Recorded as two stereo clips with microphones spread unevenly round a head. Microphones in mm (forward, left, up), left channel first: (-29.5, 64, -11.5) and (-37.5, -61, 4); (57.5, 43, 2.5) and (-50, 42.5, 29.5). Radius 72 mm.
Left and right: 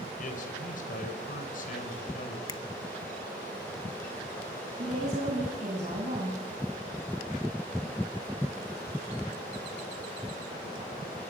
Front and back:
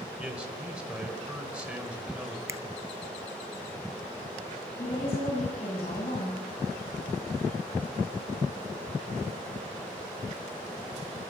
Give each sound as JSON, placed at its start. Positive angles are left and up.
{"t": 0.2, "sound": "a man speaking", "azimuth_deg": 100, "distance_m": 4.5}
{"t": 2.5, "sound": "a finger snap", "azimuth_deg": 115, "distance_m": 0.9}
{"t": 4.8, "sound": "a woman speaking", "azimuth_deg": -45, "distance_m": 8.5}